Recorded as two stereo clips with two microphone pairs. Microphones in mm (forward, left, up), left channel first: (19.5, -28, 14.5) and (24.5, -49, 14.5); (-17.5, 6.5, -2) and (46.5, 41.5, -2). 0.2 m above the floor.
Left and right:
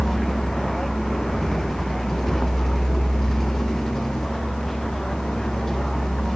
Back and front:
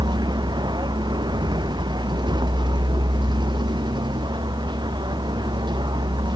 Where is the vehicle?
20° left; by 6.4 s 30° left.